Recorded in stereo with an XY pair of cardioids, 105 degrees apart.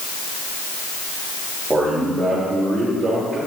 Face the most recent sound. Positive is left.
turn(degrees=-40)